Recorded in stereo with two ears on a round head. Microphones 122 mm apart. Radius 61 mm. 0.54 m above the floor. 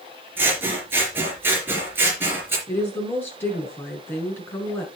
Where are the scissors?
15° right (ahead or behind), 3.5 m.